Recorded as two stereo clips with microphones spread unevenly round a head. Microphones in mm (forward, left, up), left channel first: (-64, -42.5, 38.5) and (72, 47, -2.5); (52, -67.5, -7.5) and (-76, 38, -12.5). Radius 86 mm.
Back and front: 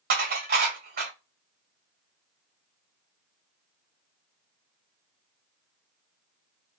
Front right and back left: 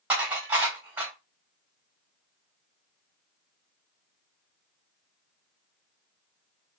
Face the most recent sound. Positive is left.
turn(degrees=60)